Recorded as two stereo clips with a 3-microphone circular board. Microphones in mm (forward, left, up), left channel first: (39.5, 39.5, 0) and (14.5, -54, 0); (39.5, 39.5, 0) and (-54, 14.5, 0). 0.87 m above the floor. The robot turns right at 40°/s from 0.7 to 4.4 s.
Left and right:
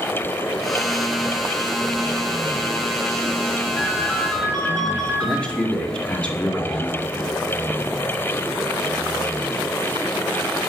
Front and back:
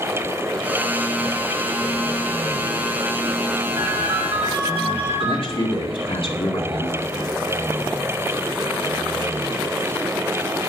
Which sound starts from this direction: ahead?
A man speaking, at 5.2 s.